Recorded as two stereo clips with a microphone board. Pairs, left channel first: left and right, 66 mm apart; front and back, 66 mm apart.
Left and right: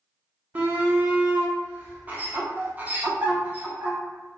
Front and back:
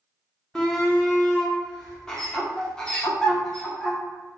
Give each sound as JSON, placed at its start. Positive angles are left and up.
{"t": 0.6, "sound": "a shout", "azimuth_deg": -65, "distance_m": 0.7}